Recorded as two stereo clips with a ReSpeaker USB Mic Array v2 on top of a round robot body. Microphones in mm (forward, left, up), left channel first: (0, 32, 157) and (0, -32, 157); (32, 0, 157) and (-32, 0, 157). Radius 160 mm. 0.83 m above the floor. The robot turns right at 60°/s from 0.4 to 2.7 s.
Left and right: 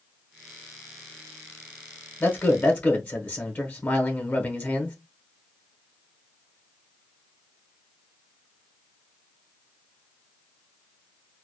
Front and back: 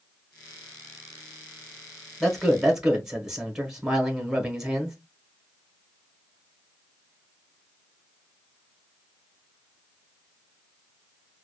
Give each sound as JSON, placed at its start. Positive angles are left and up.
{"t": 2.2, "sound": "a man speaking", "azimuth_deg": 80, "distance_m": 1.1}